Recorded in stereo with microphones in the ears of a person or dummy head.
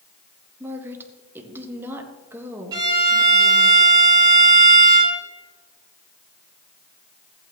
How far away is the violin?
About 3 m.